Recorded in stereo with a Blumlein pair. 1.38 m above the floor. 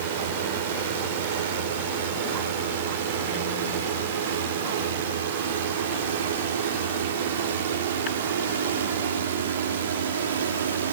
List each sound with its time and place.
0.0 s a drone: 55° right; by 10.9 s 65° right